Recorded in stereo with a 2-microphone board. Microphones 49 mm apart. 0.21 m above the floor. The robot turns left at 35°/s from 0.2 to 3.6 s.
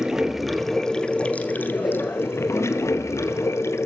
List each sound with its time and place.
0.0 s running water: 170° right, 1.2 m; by 3.9 s 70° left, 1.2 m